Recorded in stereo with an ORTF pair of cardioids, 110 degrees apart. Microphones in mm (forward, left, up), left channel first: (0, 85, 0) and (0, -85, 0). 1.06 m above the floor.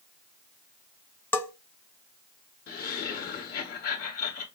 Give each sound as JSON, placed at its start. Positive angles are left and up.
{"t": 1.3, "sound": "a bell", "azimuth_deg": 10, "distance_m": 1.0}
{"t": 2.7, "sound": "laughter", "azimuth_deg": 50, "distance_m": 1.6}